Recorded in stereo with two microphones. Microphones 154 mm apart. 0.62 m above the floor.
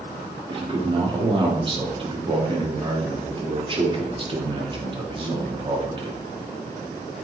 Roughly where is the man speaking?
Right.